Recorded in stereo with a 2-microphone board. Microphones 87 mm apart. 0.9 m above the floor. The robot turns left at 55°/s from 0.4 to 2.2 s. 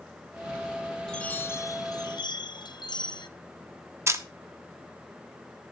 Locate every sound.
1.1 s a chime: 170° left, 0.6 m; by 3.3 s 110° left, 0.6 m
4.1 s a camera shutter: 35° right (ahead or behind), 0.9 m